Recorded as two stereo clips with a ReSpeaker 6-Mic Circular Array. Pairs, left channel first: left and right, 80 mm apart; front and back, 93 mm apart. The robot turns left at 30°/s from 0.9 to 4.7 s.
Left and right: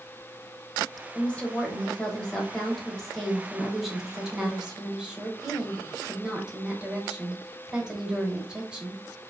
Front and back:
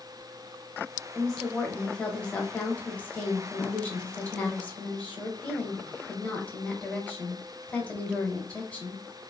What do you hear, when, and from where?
1.1 s a woman speaking: 75° left, 1.0 m; by 9.0 s 35° right, 1.0 m